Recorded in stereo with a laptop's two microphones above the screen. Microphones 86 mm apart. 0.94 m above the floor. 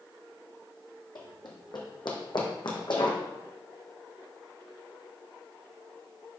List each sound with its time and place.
1.1 s running footsteps: 55° left (ahead or behind), 1.7 m